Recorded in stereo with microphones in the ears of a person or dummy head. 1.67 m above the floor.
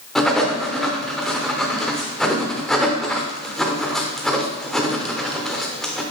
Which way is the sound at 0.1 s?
Centre (ahead or behind).